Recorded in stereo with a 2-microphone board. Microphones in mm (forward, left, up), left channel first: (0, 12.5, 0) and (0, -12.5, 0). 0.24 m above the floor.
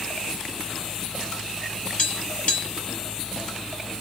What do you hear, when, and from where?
2.0 s tapping: 55° left (ahead or behind), 1.6 m